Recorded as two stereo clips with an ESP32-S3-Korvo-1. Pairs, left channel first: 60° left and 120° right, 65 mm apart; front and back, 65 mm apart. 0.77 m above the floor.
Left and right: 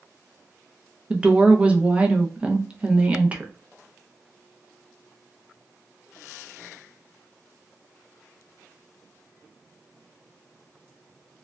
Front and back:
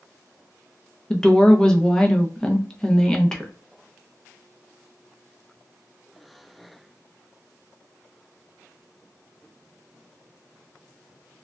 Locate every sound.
1.1 s a woman speaking: 70° right, 0.5 m